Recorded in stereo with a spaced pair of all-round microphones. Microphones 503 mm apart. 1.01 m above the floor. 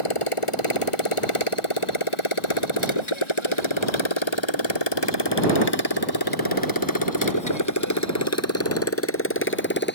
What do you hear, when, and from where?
0.0 s a motorcycle: 85° left; by 9.9 s 20° left (ahead or behind)